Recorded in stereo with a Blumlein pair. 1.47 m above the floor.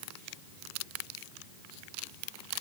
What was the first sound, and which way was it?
Only background noise.